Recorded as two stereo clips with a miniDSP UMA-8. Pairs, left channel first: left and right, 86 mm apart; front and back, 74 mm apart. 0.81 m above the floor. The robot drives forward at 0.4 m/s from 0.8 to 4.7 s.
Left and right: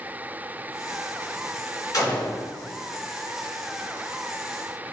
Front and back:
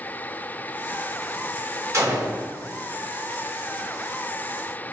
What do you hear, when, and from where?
1.9 s a gunshot: 135° left, 1.6 m; by 2.4 s 140° left, 1.7 m